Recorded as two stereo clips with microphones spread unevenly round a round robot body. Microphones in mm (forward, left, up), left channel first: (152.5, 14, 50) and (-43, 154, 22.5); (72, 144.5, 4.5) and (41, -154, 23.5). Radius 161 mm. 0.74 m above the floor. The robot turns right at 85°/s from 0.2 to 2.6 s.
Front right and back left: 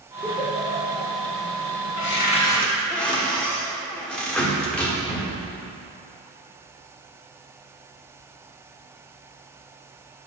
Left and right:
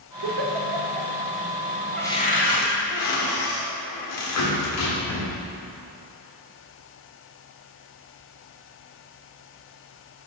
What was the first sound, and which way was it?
A giggle, 125° right.